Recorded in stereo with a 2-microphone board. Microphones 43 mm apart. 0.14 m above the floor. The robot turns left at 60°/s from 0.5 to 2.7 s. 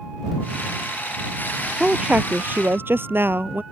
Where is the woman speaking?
15° right; by 3.6 s 70° right.